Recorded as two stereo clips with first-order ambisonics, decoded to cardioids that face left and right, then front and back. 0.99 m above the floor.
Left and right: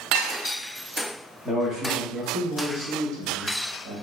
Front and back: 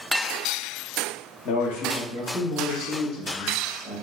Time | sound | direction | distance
1.4 | a man speaking | 15° right | 0.8 m